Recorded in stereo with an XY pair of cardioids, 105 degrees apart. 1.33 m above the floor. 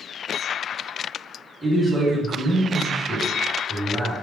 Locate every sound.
1.6 s a man speaking: 10° right, 1.8 m